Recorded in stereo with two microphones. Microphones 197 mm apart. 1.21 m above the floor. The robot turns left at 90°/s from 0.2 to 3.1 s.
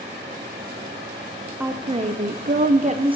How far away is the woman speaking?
About 0.7 m.